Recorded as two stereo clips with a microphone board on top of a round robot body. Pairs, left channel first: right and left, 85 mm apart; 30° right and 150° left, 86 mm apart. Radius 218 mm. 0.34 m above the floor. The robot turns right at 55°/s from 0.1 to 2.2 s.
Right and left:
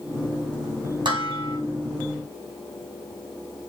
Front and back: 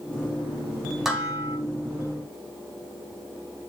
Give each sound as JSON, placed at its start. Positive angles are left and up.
{"t": 1.1, "sound": "dishes clattering", "azimuth_deg": 65, "distance_m": 2.5}